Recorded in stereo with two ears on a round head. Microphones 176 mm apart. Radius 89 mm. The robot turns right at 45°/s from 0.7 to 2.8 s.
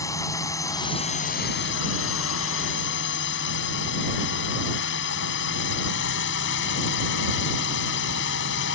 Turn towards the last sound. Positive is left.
turn(degrees=110)